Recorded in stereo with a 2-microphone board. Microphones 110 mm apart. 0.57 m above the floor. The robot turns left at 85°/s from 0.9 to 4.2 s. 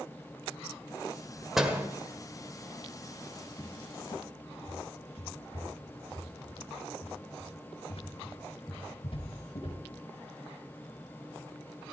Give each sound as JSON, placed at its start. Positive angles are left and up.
{"t": 1.6, "sound": "a door slam", "side_deg": 0, "distance_m": 1.7}
{"t": 3.6, "sound": "a cupboard door", "side_deg": 10, "distance_m": 3.0}